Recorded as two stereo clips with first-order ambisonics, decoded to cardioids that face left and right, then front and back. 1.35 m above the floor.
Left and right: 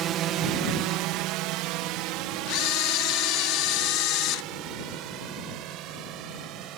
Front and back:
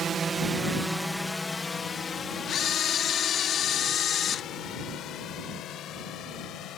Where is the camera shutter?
60° left.